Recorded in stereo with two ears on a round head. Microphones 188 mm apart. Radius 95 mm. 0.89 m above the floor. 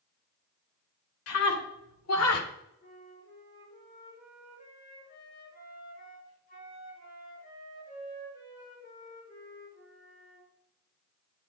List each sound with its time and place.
1.3 s a scream: 85° left, 3 m; by 2.5 s 80° left, 2.5 m
2.8 s a flute: 40° left (ahead or behind), 6.5 m